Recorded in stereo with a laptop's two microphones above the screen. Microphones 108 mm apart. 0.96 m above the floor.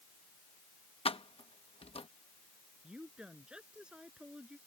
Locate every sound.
1.1 s keys jangling: 60° left (ahead or behind)
2.8 s a woman speaking: 5° right (ahead or behind)